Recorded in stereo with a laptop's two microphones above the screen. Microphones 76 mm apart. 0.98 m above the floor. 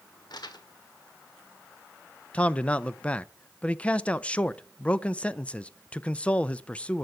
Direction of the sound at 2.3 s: 15° left (ahead or behind).